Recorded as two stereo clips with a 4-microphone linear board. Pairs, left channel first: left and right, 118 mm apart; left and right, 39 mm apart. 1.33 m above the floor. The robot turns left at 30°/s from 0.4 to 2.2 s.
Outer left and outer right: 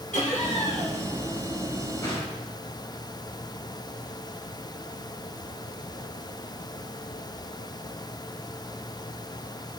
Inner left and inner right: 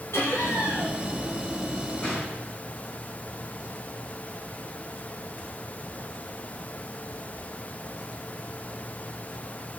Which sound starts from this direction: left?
Laughter, at 0.1 s.